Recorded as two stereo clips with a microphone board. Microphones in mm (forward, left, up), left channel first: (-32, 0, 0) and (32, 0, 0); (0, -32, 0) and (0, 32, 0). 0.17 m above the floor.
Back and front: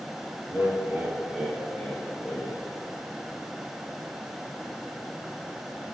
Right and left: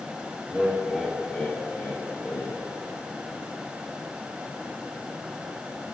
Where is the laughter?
35° left, 1.4 m; by 2.6 s 115° right, 1.8 m.